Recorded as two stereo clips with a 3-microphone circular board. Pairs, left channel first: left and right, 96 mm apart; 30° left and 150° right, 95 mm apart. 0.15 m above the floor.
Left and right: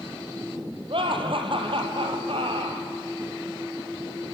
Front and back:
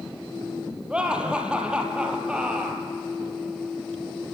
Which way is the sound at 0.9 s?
70° right.